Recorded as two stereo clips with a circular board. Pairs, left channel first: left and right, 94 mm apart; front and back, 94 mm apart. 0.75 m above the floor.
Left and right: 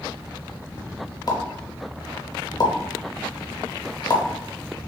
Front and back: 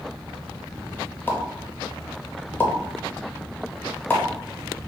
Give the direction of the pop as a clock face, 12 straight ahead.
10 o'clock.